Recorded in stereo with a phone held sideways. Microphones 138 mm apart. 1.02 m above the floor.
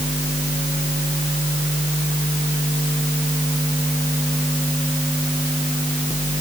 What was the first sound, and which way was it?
Only background noise.